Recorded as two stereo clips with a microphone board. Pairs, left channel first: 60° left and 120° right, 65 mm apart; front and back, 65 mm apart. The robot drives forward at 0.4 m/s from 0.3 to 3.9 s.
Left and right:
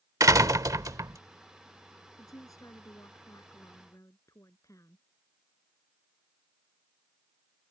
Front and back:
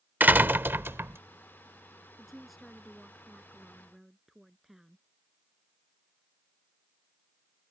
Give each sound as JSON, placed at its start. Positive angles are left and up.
{"t": 0.2, "sound": "a door slam", "azimuth_deg": -125}
{"t": 2.2, "sound": "a woman speaking", "azimuth_deg": 90}